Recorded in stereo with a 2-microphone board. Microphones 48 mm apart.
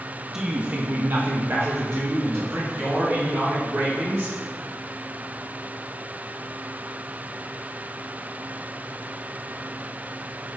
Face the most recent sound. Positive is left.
turn(degrees=-45)  # may be behind; listen again after turning